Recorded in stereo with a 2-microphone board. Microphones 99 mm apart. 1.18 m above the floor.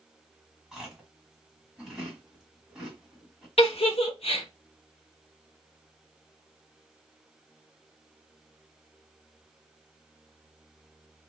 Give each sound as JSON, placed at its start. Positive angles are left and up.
{"t": 0.7, "sound": "chewing", "side_deg": -5, "distance_m": 1.4}
{"t": 3.6, "sound": "a giggle", "side_deg": 75, "distance_m": 0.8}